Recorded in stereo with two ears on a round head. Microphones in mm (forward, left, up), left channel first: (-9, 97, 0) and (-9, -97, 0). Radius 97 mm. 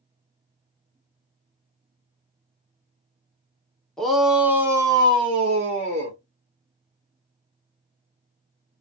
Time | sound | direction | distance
4.0 | a shout | centre (ahead or behind) | 0.9 m